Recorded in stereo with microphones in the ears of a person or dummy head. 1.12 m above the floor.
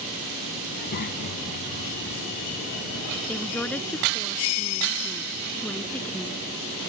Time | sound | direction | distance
0.7 | a child speaking | 50° left (ahead or behind) | ?
3.3 | a woman speaking | 5° left (ahead or behind) | ?